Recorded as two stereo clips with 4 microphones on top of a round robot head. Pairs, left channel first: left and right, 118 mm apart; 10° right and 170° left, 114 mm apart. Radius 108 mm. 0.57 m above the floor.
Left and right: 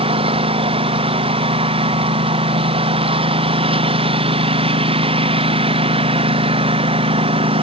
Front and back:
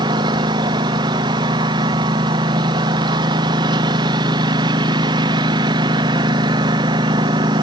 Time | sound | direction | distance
0.0 | a lawn mower | 130° right | ?